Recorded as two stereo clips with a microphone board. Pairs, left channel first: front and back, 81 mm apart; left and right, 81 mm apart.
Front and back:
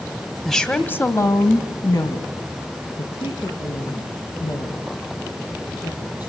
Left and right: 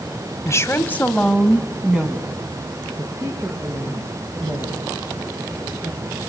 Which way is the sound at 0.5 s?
85° left.